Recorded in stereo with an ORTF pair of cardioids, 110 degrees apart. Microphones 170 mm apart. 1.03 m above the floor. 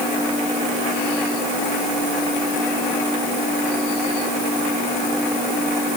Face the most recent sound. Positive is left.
No sound to turn to.